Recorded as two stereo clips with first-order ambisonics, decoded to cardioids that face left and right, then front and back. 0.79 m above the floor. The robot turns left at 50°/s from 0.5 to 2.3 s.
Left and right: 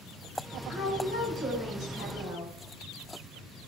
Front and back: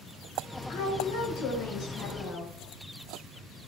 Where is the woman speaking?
35° left, 2 m; by 2.5 s 45° right, 2 m.